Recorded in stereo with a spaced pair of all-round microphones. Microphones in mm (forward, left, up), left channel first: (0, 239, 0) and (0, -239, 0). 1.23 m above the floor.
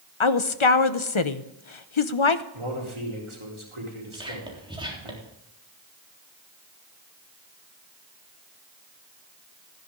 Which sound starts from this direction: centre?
Whispering, at 4.1 s.